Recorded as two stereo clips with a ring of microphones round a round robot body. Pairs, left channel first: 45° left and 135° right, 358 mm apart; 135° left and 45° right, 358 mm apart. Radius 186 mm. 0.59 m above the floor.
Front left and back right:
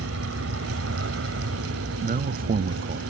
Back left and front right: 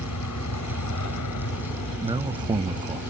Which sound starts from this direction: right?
A man speaking, at 2.0 s.